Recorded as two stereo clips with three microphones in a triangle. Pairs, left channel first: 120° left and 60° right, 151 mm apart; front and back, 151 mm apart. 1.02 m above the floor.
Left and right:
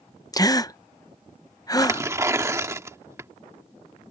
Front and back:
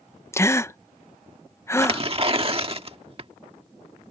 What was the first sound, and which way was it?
A gasp, 65° left.